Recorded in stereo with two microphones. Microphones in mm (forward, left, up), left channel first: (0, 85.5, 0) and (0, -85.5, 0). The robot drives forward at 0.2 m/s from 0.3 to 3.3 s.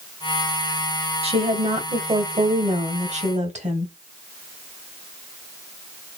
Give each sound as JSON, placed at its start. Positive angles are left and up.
{"t": 1.2, "sound": "a woman speaking", "side_deg": -35, "distance_m": 1.4}